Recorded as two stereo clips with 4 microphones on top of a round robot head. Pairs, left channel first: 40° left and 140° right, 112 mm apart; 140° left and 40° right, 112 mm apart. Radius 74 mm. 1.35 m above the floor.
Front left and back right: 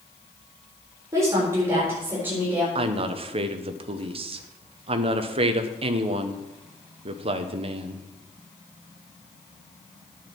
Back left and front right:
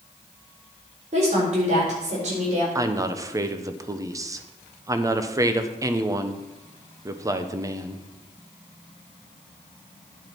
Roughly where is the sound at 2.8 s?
Right.